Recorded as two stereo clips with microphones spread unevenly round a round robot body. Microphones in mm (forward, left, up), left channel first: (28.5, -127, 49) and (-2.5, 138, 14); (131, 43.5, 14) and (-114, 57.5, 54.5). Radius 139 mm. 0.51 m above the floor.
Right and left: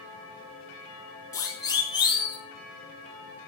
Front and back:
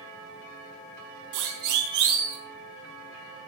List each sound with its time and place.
1.3 s a siren: 165° right, 5.5 m; by 2.4 s 160° right, 6.5 m